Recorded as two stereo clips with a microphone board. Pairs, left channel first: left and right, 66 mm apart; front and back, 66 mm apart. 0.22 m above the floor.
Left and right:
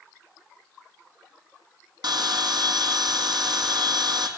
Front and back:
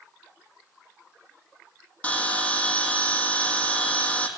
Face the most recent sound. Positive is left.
turn(degrees=-75)